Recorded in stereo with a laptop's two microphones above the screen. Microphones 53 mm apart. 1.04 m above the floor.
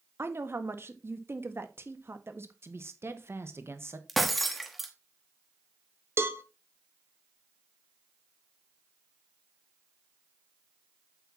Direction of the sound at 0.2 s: 55° right (ahead or behind).